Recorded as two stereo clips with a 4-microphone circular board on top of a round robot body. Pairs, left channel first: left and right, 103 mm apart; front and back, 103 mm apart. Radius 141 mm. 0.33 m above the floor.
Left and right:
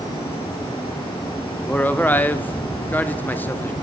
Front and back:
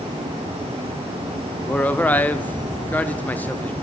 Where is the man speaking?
45° left, 0.9 m.